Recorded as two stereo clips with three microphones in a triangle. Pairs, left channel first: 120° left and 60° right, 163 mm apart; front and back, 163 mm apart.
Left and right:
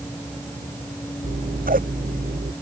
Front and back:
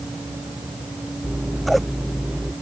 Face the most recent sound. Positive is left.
turn(degrees=-90)